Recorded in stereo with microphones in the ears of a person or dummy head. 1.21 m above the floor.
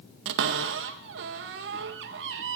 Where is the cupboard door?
65° right (ahead or behind), 0.6 m.